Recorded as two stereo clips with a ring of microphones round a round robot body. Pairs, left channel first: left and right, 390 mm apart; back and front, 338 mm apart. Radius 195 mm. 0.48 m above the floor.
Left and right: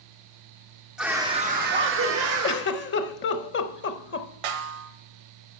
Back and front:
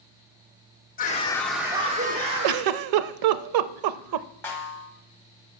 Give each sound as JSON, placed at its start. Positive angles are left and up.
{"t": 1.0, "sound": "a scream", "azimuth_deg": -175, "distance_m": 0.8}
{"t": 2.4, "sound": "a giggle", "azimuth_deg": 25, "distance_m": 0.5}
{"t": 4.4, "sound": "a snare drum", "azimuth_deg": -95, "distance_m": 1.1}